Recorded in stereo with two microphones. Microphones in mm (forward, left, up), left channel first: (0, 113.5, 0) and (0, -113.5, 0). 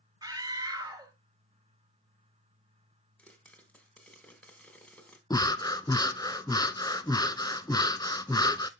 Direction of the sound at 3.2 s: 5° left (ahead or behind).